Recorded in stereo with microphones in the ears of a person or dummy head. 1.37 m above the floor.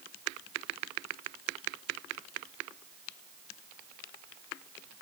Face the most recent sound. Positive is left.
No sound to turn to.